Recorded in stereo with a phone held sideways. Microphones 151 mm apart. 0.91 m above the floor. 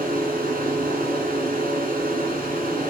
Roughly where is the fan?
Right.